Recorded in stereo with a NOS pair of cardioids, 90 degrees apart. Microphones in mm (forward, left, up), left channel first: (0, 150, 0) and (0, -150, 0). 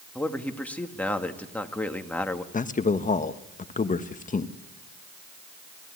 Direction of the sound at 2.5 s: 25° left.